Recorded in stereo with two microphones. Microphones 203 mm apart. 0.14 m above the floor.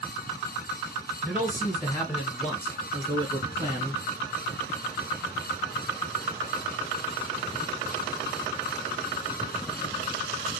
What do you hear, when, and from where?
1.2 s a man speaking: 10° right (ahead or behind), 1.8 m; by 4.0 s 25° left (ahead or behind), 1.6 m